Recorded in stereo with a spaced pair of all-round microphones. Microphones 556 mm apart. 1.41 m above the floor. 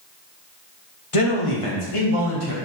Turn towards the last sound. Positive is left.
turn(degrees=80)